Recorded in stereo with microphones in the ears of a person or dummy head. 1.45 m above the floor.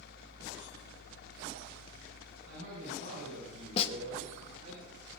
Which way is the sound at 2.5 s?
65° right (ahead or behind).